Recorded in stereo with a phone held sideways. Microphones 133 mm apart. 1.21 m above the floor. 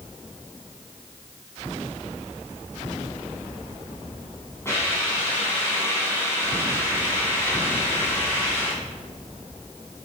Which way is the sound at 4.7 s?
20° left (ahead or behind).